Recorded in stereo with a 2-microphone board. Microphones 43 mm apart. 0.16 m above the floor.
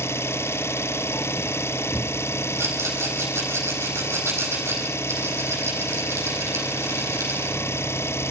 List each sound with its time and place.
0.0 s an engine running: 80° left, 0.9 m
2.6 s a rattle: 80° right, 5.5 m